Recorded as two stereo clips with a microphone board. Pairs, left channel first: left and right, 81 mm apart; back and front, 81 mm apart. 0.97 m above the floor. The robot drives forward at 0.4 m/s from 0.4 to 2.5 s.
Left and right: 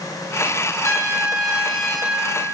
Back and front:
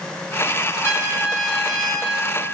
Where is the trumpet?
55° left, 1.1 m; by 2.5 s 115° left, 1.0 m.